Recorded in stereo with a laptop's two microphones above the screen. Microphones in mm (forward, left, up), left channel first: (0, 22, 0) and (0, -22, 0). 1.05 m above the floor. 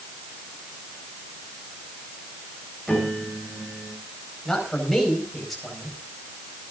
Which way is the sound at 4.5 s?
5° left (ahead or behind).